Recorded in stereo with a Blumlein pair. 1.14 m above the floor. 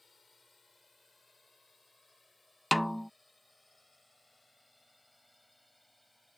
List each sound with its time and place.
0.0 s a drone: 10° left; by 6.4 s 5° left
2.7 s a snare drum: straight ahead